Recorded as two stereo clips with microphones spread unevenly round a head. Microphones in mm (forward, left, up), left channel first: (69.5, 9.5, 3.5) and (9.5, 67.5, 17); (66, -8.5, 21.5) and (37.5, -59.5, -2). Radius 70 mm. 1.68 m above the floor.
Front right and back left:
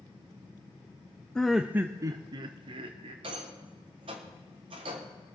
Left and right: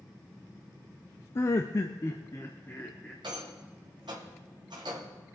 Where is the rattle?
175° left, 1.1 m.